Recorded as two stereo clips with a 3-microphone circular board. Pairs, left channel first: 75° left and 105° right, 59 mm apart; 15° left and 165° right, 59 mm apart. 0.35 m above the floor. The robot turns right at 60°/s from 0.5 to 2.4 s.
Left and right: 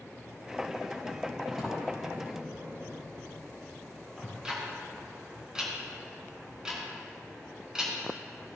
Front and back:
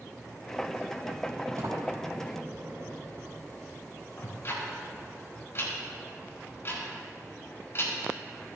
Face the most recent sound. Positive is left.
turn(degrees=-30)